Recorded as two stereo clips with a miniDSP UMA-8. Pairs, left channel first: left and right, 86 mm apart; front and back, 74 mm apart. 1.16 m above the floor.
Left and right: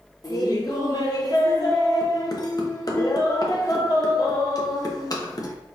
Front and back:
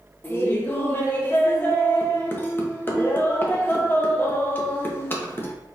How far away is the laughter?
About 1.2 m.